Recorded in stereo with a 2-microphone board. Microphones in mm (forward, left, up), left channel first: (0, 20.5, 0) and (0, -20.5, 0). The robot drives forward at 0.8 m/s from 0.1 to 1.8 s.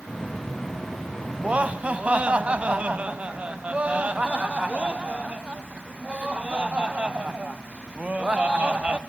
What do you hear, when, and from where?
1.4 s laughter: 30° right (ahead or behind), 1.1 m